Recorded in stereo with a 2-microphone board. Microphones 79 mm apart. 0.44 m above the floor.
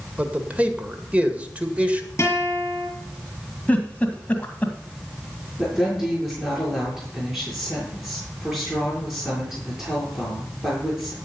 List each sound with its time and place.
0.2 s a man speaking: 20° right (ahead or behind), 1.8 m
2.2 s a guitar: 30° left (ahead or behind), 6.5 m
3.7 s a giggle: 20° left (ahead or behind), 2 m
5.6 s a woman speaking: 5° right (ahead or behind), 7 m